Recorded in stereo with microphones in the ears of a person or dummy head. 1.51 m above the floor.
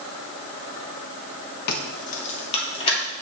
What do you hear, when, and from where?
1.7 s keys jangling: 50° left (ahead or behind), 1.0 m; by 3.0 s 35° left (ahead or behind), 2.5 m